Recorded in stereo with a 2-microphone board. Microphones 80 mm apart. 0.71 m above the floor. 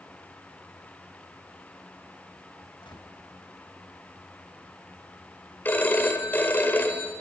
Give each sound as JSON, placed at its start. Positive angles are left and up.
{"t": 2.8, "sound": "a gunshot", "side_deg": 85, "distance_m": 4.0}
{"t": 5.7, "sound": "a phone ringing", "side_deg": 25, "distance_m": 2.0}